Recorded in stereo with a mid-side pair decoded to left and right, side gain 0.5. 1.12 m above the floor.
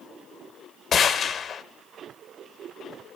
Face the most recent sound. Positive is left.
turn(degrees=50)